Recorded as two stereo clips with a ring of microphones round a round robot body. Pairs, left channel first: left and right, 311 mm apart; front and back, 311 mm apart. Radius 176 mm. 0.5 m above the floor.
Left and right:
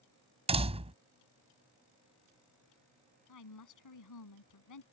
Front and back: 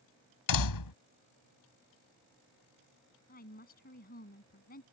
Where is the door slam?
20° right.